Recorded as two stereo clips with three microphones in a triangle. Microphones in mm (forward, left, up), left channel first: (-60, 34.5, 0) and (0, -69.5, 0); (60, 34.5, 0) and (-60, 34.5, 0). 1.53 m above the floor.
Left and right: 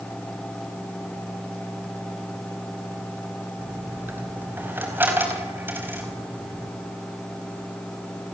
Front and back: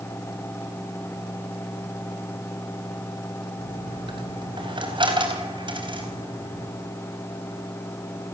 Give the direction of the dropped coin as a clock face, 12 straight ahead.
4 o'clock.